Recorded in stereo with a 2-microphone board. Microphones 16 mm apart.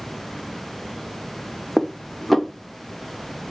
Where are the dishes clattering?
10° left (ahead or behind), 0.6 m.